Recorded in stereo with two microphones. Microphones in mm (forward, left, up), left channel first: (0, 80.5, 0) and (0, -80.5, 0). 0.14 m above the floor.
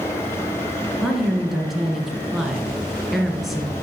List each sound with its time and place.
0.9 s a woman speaking: centre (ahead or behind), 1.6 m